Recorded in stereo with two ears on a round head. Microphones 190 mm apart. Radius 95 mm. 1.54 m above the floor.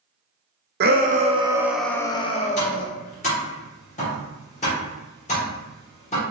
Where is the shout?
50° right (ahead or behind), 0.7 m; by 2.9 s 45° left (ahead or behind), 0.8 m.